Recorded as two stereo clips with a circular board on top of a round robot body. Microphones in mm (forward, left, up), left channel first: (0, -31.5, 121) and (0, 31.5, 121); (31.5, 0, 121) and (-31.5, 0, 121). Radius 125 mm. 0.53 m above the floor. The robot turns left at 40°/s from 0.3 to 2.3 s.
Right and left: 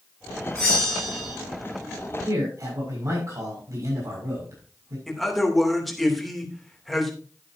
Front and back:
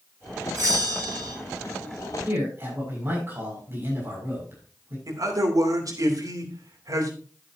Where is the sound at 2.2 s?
130° left, 6.5 m; by 5.0 s 125° left, 6.5 m.